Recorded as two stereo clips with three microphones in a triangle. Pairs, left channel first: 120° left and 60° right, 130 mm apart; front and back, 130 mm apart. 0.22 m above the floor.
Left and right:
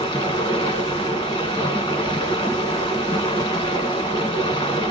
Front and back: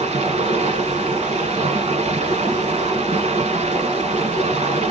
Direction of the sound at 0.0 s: 165° left.